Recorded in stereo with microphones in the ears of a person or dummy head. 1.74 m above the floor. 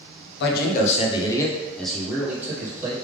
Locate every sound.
0.4 s a man speaking: 65° left (ahead or behind), 0.8 m; by 2.9 s 15° right (ahead or behind), 1.7 m